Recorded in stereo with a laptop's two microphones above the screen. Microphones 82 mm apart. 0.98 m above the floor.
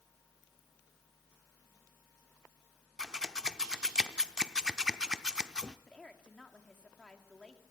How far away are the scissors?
About 0.6 m.